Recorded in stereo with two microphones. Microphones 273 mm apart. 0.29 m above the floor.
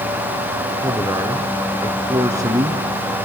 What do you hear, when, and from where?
0.8 s a man speaking: 15° right (ahead or behind), 3.5 m